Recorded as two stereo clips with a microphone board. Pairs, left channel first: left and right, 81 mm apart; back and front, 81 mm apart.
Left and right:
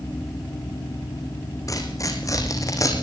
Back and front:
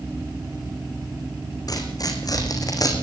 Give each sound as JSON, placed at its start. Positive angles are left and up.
{"t": 1.7, "sound": "tearing paper", "azimuth_deg": 140, "distance_m": 4.5}